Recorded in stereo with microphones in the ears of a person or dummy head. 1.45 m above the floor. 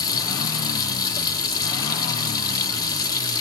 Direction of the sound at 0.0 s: 20° left (ahead or behind).